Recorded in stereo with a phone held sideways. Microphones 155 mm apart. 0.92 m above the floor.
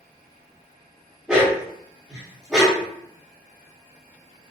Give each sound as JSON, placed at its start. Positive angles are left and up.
{"t": 1.3, "sound": "a dog barking", "side_deg": -5, "distance_m": 1.0}